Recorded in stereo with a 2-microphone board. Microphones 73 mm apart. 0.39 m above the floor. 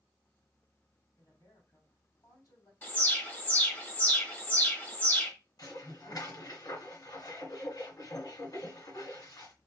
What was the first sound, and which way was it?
A woman speaking, 60° left (ahead or behind).